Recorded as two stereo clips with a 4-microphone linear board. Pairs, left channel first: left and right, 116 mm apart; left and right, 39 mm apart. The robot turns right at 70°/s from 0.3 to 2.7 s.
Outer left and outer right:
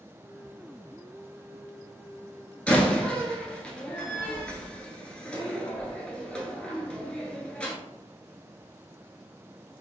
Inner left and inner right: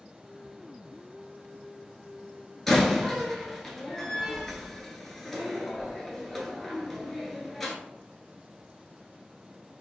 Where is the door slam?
10° left (ahead or behind), 1.0 m.